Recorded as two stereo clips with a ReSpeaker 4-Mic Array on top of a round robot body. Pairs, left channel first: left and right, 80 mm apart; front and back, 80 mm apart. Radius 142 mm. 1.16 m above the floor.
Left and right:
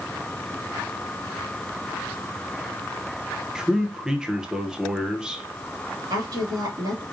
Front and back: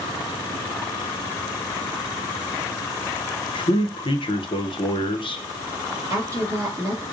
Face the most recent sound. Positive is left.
turn(degrees=-125)